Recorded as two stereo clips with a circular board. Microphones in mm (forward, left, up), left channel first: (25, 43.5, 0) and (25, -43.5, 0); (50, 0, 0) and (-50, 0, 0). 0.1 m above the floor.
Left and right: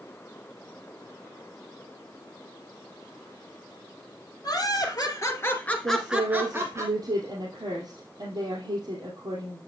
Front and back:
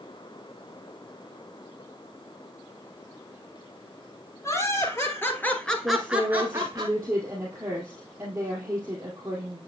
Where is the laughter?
55° left, 2.5 m; by 6.8 s 130° right, 1.8 m.